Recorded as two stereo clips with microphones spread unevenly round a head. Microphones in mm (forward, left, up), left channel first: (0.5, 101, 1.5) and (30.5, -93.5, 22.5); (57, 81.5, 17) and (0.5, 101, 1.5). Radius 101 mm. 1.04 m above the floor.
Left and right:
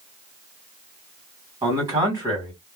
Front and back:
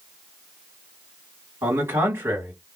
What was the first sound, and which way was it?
A man speaking, 155° right.